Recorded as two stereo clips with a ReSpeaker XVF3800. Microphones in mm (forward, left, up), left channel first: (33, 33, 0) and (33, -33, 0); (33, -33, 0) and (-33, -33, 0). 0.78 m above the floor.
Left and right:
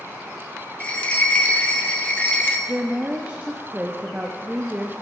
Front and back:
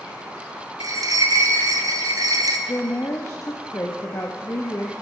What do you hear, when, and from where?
0.8 s a bell: 160° left, 0.7 m
2.7 s a woman speaking: 25° right, 0.7 m